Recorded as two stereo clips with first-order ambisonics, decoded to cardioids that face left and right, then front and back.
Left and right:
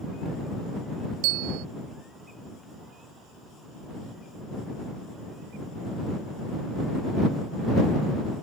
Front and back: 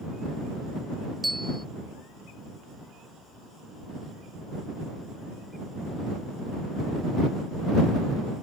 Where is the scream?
I don't hear a scream.